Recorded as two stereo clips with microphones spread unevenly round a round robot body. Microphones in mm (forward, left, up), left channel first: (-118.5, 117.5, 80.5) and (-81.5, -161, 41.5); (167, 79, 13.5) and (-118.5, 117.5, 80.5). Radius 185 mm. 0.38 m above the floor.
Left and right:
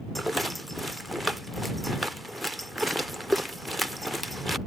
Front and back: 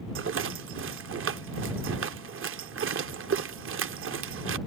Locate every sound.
0.1 s a rattle: 160° right